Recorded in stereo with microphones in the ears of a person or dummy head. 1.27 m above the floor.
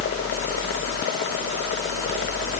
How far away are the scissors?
No scissors in this recording.